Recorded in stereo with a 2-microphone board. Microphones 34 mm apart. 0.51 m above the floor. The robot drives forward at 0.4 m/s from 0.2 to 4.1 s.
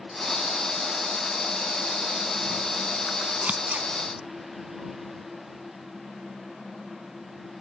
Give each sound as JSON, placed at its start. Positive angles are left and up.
{"t": 3.4, "sound": "scissors", "side_deg": -35, "distance_m": 1.0}